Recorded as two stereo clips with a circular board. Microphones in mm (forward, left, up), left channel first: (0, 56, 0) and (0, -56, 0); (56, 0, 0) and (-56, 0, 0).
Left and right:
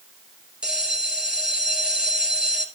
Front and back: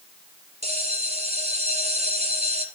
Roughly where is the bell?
Behind.